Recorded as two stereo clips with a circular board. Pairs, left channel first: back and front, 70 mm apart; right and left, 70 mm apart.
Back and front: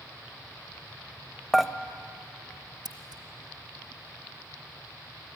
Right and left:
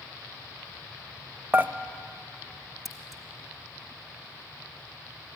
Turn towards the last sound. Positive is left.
turn(degrees=0)